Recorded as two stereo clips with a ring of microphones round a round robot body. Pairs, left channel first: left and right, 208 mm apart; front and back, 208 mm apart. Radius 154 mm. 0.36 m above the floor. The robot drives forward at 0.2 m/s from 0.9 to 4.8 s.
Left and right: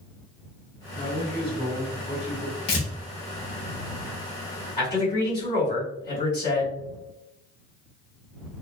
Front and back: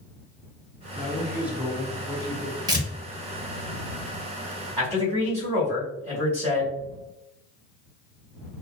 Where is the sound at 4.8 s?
150° left, 1.8 m.